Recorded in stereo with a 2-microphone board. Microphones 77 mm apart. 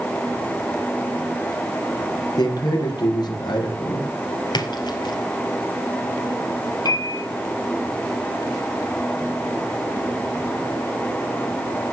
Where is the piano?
60° left (ahead or behind), 5 m.